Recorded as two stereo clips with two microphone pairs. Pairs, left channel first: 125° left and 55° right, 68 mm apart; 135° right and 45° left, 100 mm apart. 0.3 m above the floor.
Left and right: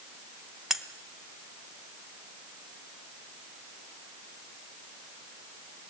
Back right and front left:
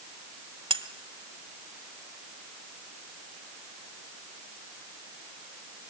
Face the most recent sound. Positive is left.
turn(degrees=30)